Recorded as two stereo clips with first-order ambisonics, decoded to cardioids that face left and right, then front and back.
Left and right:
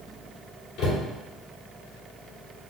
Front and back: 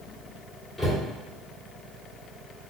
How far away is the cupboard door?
About 1.6 m.